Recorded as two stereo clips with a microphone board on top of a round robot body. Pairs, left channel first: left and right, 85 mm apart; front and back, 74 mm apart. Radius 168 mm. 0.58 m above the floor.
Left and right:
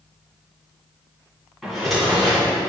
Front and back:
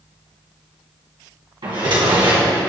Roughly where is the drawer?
Behind.